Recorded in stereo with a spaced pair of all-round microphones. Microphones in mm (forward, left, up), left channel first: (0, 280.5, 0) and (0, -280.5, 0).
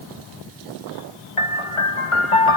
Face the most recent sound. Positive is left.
turn(degrees=60)  # may be behind; listen again after turning